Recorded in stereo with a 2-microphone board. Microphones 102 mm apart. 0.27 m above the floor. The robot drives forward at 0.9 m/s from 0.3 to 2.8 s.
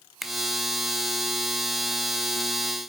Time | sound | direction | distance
0.2 | a finger snap | centre (ahead or behind) | 1.2 m